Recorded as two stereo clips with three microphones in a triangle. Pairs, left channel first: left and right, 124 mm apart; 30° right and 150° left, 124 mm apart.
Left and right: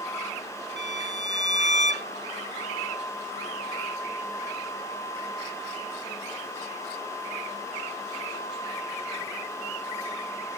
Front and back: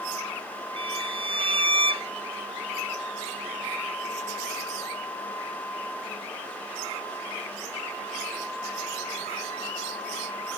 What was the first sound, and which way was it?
A violin, 105° left.